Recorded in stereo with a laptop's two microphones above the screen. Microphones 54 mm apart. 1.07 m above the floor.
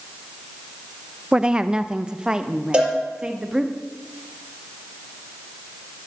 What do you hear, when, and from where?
1.3 s a woman speaking: 15° right (ahead or behind), 0.6 m; by 3.7 s 10° right (ahead or behind), 1.9 m
2.7 s a cowbell: 15° right (ahead or behind), 4.5 m